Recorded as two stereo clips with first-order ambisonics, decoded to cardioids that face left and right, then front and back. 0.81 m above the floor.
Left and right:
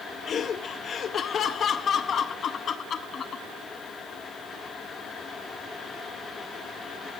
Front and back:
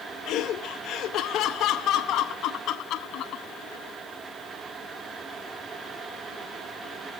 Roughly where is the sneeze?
I don't hear a sneeze.